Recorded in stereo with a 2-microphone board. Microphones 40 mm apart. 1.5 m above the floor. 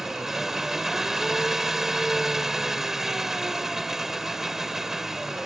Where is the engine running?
10° right (ahead or behind).